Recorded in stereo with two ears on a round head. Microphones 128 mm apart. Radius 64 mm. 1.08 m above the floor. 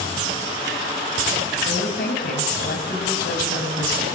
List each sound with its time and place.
1.6 s a woman speaking: 70° left (ahead or behind), 7.5 m